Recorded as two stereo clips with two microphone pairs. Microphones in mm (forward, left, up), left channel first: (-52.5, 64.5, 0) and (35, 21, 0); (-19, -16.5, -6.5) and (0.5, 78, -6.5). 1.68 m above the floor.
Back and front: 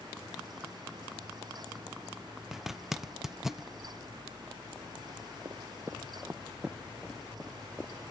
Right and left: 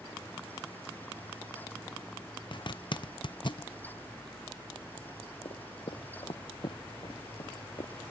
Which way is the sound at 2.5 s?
115° right.